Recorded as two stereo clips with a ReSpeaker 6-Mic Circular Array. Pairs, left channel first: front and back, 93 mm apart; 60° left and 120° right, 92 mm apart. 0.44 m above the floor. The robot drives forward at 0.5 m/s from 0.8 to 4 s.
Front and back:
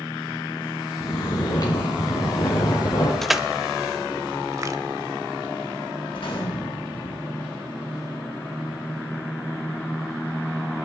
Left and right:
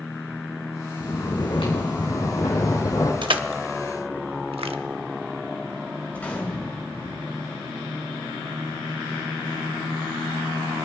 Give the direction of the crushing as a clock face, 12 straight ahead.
3 o'clock.